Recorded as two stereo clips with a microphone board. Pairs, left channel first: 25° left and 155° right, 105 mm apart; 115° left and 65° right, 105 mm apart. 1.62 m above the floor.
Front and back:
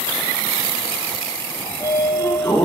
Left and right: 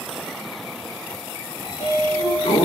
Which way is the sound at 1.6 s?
90° left.